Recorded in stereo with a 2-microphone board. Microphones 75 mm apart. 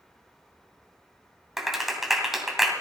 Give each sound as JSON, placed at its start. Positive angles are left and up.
{"t": 1.6, "sound": "a clap", "side_deg": -5, "distance_m": 2.5}